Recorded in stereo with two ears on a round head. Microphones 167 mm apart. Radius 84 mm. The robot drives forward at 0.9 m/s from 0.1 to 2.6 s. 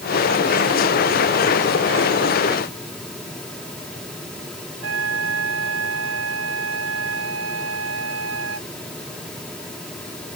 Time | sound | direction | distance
4.8 | a flute | 75° right (ahead or behind) | ?